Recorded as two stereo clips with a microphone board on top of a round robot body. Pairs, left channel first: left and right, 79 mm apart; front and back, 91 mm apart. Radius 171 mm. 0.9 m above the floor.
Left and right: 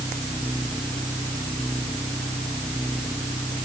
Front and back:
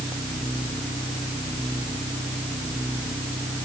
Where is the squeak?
No squeak in this recording.